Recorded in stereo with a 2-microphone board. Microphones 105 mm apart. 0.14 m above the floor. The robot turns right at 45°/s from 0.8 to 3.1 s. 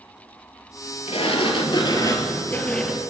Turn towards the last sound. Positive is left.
turn(degrees=-170)